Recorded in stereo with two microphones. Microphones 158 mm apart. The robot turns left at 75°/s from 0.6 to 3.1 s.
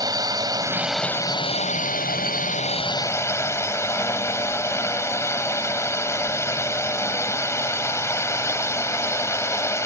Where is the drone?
155° right; by 9.9 s 20° left.